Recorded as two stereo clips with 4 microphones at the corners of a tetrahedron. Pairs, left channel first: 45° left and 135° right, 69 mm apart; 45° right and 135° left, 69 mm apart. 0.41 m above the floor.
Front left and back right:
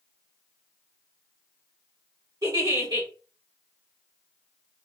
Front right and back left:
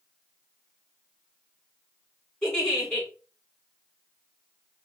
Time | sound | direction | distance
2.4 | a giggle | 125° right | 3 m